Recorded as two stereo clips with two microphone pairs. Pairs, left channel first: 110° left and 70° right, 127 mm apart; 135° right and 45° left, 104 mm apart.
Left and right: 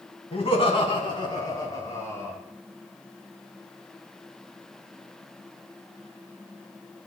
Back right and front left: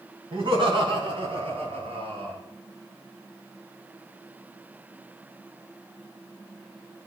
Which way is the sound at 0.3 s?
75° left.